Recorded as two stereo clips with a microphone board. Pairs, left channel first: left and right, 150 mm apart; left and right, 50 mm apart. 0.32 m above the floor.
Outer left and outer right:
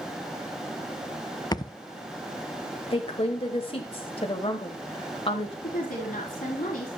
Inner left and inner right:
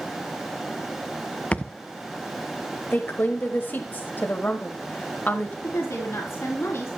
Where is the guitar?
No guitar in this recording.